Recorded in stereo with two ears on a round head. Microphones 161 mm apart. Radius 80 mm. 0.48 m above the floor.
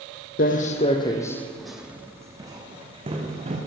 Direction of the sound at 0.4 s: 50° left (ahead or behind).